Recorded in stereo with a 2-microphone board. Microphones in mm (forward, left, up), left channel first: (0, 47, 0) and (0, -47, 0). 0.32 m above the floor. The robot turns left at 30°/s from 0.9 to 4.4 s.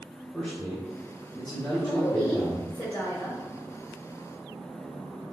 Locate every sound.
0.3 s a man speaking: straight behind, 1.1 m; by 2.7 s 125° left, 1.1 m
1.7 s a woman speaking: 90° left, 1.1 m; by 3.4 s 40° left, 1.1 m